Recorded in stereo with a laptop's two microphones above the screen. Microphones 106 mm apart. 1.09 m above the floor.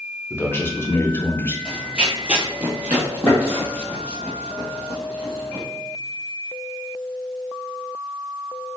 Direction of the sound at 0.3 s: 20° left (ahead or behind).